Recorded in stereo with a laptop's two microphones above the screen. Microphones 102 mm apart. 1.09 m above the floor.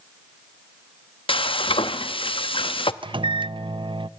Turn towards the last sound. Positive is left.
turn(degrees=-55)  # may be behind; listen again after turning